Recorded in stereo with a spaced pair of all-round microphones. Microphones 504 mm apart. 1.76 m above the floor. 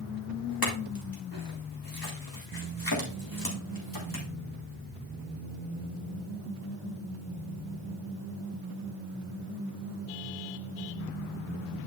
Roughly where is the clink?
Left.